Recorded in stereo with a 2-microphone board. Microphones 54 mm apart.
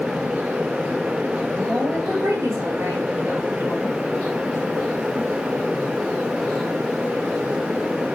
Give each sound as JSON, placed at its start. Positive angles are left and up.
{"t": 1.6, "sound": "a woman speaking", "side_deg": -70, "distance_m": 3.5}